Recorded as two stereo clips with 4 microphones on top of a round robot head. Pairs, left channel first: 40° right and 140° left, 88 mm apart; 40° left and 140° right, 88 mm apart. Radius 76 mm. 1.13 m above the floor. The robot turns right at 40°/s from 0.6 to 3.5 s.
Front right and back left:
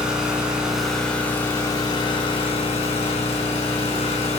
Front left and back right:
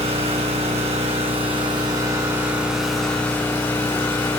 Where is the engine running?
140° right, 3.5 m; by 4.4 s 25° right, 3.5 m.